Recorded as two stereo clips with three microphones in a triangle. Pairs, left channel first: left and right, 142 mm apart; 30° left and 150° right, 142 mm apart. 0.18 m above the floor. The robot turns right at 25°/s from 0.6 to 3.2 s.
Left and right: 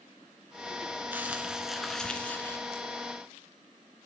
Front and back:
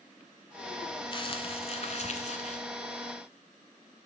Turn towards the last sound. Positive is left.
turn(degrees=35)